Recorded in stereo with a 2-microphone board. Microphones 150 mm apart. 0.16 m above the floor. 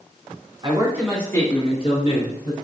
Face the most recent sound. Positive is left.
turn(degrees=65)  # may be behind; listen again after turning